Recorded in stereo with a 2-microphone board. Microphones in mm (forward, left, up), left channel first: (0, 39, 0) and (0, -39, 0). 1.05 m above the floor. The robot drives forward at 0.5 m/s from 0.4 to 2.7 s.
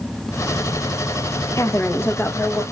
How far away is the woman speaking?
About 0.6 m.